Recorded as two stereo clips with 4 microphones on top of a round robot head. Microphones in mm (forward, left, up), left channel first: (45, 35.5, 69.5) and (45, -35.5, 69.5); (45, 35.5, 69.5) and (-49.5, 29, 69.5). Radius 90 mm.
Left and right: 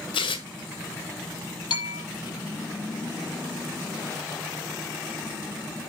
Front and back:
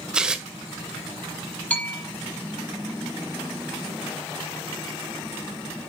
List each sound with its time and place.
0.1 s tearing paper: 100° left, 1.5 m
1.7 s a bell: 80° left, 7.5 m